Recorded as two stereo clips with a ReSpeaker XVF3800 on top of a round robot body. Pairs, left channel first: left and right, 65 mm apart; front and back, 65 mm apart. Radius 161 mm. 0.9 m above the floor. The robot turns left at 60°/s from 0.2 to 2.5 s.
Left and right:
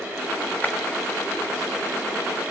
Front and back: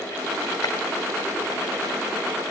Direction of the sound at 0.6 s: 25° left.